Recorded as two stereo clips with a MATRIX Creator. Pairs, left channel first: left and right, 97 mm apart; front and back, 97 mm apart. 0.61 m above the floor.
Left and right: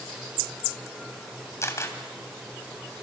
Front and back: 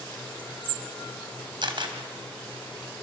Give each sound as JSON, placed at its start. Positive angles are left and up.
{"t": 1.6, "sound": "a camera shutter", "azimuth_deg": 150, "distance_m": 3.0}